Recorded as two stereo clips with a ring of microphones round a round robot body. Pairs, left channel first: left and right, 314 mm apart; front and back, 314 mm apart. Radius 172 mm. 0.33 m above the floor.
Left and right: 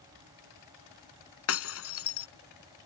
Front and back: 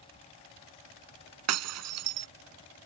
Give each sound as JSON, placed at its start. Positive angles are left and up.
{"t": 1.5, "sound": "breaking glass", "azimuth_deg": 140}